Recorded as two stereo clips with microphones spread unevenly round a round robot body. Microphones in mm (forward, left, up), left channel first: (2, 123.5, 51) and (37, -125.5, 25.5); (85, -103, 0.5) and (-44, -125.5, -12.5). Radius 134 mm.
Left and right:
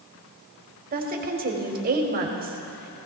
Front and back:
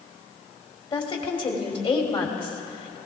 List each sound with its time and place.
0.9 s a woman speaking: 35° right, 2.5 m